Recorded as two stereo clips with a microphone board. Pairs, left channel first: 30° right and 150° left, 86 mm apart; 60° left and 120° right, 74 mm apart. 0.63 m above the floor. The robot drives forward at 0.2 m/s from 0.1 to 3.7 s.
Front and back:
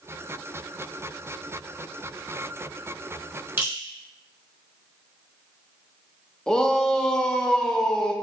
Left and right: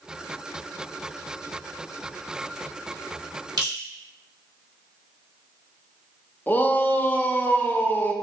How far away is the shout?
About 0.5 m.